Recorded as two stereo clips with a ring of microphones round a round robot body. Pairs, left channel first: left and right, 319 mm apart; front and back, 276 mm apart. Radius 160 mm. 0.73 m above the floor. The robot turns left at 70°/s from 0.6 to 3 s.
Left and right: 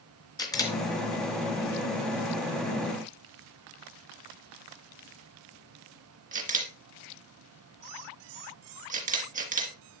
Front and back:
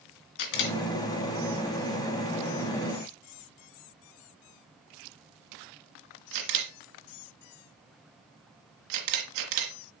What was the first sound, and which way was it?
A camera shutter, 10° left.